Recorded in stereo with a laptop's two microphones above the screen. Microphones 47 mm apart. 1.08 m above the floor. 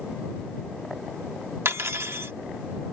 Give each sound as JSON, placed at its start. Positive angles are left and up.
{"t": 1.6, "sound": "cutlery clinking", "side_deg": -65}